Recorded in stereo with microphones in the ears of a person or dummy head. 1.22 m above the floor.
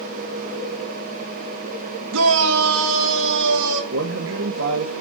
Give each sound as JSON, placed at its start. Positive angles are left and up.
{"t": 2.1, "sound": "a shout", "side_deg": -80, "distance_m": 1.1}
{"t": 3.9, "sound": "a man speaking", "side_deg": -70, "distance_m": 1.7}